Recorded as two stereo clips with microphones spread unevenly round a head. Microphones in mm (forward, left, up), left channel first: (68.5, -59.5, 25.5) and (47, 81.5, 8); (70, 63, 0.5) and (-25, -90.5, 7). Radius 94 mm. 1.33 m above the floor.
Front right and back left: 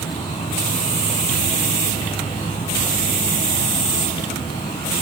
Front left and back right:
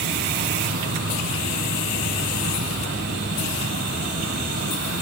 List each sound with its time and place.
0.0 s an insect: 150° right, 1.6 m